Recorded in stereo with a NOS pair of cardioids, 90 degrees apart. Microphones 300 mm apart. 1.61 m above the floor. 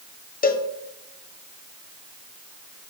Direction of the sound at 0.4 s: 30° left.